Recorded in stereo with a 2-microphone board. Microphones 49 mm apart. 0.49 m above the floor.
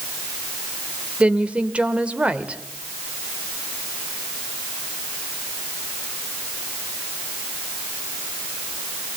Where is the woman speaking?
25° right (ahead or behind), 1.5 m.